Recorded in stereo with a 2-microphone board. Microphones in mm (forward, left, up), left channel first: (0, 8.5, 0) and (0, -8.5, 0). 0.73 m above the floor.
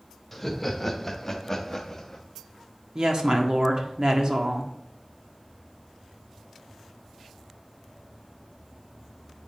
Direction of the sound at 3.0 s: 45° right (ahead or behind).